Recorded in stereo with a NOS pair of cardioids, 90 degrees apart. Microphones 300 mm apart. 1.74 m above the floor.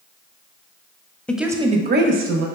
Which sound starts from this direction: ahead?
A woman speaking, at 1.3 s.